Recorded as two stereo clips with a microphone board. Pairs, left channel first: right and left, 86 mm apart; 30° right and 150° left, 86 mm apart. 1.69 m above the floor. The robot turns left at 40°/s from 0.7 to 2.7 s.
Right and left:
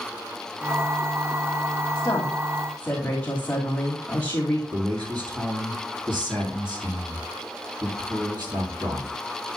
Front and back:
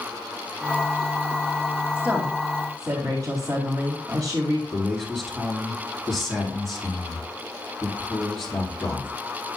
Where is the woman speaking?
140° right, 2.5 m; by 4.6 s 170° right, 2.5 m.